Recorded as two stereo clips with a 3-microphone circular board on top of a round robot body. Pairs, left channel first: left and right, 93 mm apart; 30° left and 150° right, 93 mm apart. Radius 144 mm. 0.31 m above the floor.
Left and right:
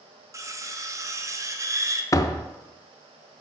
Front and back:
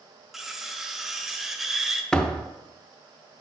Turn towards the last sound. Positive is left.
turn(degrees=105)